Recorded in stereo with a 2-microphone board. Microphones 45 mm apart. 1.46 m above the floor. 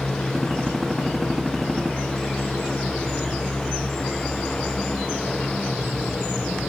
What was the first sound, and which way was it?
A gunshot, 10° right (ahead or behind).